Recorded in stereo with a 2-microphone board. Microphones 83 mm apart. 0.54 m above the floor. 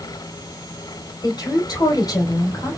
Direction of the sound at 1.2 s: 50° left (ahead or behind).